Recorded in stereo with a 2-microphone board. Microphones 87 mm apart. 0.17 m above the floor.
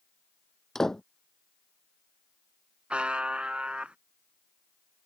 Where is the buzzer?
15° right (ahead or behind).